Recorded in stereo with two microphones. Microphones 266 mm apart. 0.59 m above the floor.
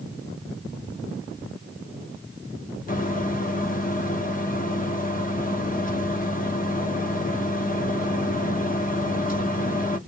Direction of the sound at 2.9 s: 30° left (ahead or behind).